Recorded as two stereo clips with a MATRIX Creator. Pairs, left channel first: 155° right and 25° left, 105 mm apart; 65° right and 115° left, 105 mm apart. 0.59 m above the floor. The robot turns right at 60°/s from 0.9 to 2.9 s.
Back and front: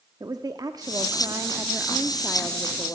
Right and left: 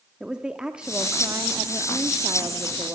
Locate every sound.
0.2 s a woman speaking: 35° left, 0.8 m; by 3.0 s 155° left, 0.8 m